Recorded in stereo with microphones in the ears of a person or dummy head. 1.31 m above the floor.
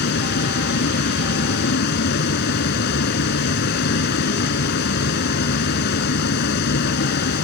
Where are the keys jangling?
No keys jangling in this recording.